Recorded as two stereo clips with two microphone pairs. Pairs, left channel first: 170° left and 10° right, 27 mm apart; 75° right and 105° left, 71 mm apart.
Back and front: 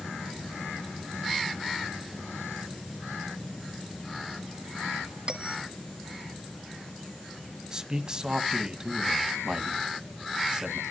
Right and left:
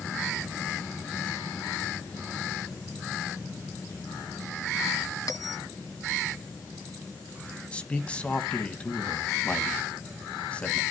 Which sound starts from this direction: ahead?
A man speaking, at 7.7 s.